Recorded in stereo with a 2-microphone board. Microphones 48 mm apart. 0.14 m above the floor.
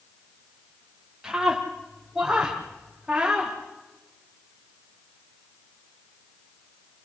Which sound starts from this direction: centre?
A scream, at 1.2 s.